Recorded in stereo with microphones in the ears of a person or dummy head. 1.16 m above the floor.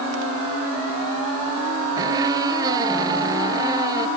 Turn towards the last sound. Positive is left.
turn(degrees=-20)  # may be behind; listen again after turning